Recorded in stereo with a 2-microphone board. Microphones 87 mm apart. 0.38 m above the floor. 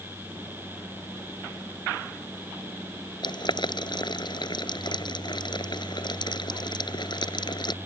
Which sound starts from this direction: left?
Boiling, at 3.2 s.